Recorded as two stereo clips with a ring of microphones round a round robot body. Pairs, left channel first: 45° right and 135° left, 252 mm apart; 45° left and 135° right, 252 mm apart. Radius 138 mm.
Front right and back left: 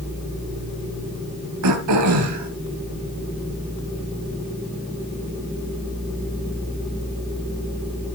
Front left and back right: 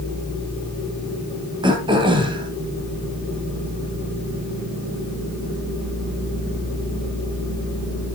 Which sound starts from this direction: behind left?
Throat clearing, at 1.6 s.